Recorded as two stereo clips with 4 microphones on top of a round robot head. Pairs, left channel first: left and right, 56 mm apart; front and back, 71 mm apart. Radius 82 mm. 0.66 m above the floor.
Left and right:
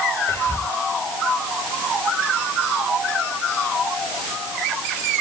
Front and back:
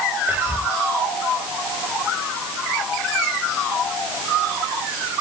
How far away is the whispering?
About 3 m.